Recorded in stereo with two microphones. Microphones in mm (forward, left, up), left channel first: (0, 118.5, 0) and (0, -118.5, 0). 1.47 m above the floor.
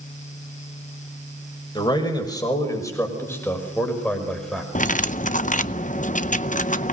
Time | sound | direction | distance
1.8 | a man speaking | 20° left (ahead or behind) | 5.5 m
4.8 | cutlery clinking | 30° left (ahead or behind) | 0.6 m